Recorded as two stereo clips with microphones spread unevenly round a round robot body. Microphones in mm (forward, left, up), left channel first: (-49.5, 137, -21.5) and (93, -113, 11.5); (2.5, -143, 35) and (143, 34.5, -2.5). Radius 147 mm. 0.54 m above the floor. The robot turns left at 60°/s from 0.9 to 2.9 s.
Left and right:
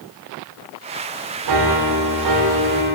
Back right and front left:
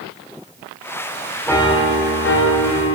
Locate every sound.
1.5 s a piano: 40° right, 0.9 m; by 3.0 s 130° right, 0.9 m